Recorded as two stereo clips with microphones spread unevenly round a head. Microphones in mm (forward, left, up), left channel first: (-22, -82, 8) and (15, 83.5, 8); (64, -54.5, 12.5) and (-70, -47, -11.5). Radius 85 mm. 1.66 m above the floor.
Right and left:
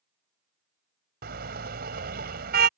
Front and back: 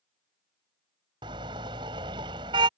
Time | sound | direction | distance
1.2 | a car horn | 110° left | ?